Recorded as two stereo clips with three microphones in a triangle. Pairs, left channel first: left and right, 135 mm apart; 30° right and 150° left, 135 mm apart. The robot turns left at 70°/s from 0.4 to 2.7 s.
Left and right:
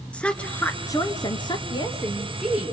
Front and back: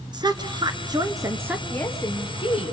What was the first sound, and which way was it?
A woman speaking, 165° left.